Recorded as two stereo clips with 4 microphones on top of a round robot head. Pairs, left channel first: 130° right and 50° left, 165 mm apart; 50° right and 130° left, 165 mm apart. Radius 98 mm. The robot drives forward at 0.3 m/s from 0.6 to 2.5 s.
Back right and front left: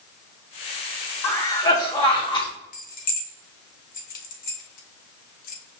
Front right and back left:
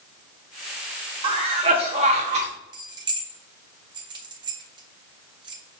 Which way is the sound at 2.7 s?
165° right.